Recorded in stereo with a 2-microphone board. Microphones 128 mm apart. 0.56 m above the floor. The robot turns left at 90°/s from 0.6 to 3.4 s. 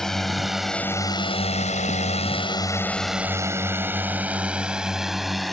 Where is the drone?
5° left (ahead or behind); by 5.5 s centre (ahead or behind).